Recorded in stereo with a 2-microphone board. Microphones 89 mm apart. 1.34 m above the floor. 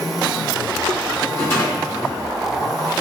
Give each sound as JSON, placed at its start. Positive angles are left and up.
{"t": 1.3, "sound": "a rattle", "side_deg": 30, "distance_m": 1.8}